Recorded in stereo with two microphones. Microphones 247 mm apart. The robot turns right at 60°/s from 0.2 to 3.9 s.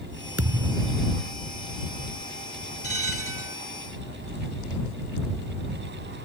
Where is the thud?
100° right; by 1.1 s 55° right.